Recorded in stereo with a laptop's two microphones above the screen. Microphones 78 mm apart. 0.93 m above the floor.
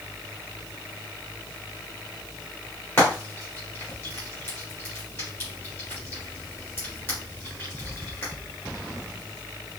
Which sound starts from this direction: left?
Frying, at 3.0 s.